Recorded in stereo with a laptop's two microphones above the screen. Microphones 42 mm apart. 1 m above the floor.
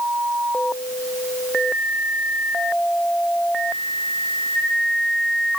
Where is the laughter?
No laughter in this recording.